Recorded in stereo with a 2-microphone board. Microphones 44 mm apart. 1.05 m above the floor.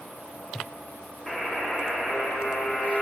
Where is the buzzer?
10° left (ahead or behind), 0.6 m.